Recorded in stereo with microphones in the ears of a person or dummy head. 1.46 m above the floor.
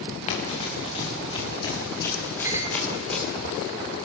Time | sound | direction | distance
0.3 | running footsteps | 40° left (ahead or behind) | 7.5 m
2.4 | a clink | 10° right (ahead or behind) | 2.5 m